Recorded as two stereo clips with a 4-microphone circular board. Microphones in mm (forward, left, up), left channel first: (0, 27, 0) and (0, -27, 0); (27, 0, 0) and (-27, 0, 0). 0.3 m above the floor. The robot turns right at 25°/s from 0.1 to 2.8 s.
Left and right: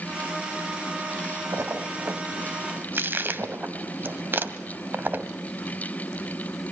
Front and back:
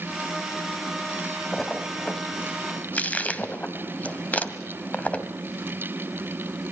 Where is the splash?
85° right, 1.8 m; by 5.3 s 55° right, 1.8 m.